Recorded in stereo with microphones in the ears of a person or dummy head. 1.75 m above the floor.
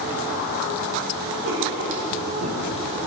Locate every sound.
1.4 s writing: 65° right (ahead or behind), 2.5 m